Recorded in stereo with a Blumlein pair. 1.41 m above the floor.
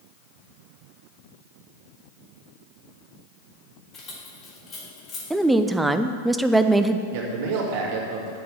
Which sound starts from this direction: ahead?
A woman speaking, at 5.3 s.